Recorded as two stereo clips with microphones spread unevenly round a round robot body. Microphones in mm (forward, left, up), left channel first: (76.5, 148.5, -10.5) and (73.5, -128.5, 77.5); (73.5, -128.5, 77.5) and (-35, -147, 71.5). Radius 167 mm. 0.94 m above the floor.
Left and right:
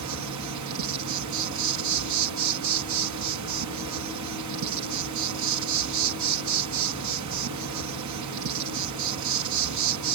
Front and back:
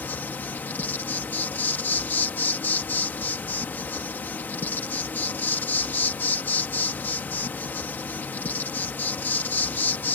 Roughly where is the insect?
Ahead right.